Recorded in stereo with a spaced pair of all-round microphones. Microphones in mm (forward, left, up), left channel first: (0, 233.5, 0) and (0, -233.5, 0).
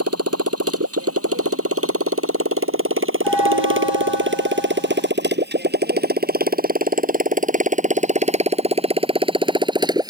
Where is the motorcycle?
30° right (ahead or behind); by 10.1 s 10° right (ahead or behind).